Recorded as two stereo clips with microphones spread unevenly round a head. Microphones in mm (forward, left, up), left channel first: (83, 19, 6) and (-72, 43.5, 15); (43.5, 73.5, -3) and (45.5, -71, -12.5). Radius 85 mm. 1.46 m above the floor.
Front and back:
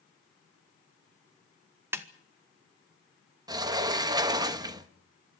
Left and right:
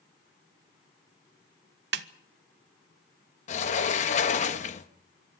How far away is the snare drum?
About 1.0 m.